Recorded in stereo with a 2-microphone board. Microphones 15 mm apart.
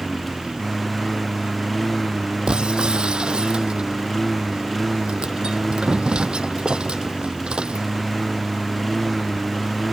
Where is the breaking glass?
80° right.